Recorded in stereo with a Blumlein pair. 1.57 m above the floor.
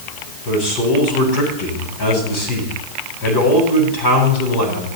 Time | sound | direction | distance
0.5 | a man speaking | 40° left | 9 m